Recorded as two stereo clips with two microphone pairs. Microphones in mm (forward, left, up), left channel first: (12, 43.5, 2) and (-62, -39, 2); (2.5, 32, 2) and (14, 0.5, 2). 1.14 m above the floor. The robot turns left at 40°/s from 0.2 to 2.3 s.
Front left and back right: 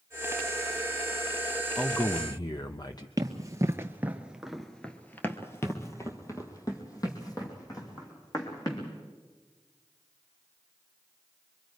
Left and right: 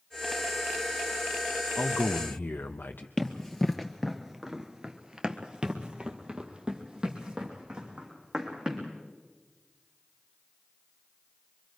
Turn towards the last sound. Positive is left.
turn(degrees=-5)